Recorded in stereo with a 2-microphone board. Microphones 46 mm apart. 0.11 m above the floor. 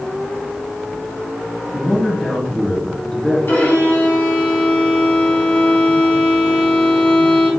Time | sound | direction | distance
1.7 | a man speaking | 15° left (ahead or behind) | 1.8 m
3.5 | a violin | 55° left (ahead or behind) | 1.7 m